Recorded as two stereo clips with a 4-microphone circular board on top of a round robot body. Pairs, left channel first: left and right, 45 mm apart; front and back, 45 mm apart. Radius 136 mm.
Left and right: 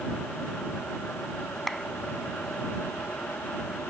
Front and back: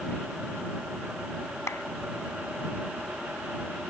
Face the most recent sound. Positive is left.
turn(degrees=0)